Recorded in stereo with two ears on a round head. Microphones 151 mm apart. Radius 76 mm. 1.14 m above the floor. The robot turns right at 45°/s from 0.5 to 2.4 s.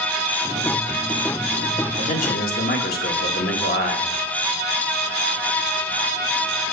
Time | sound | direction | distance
2.0 | a man speaking | 40° left (ahead or behind) | 1.6 m